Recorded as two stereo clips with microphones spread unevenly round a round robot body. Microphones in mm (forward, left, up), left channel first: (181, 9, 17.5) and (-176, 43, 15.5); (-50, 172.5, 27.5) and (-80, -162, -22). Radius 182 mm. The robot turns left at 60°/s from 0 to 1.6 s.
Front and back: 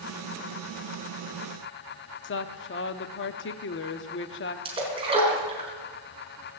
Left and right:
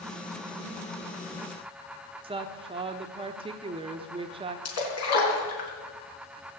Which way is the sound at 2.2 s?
40° right.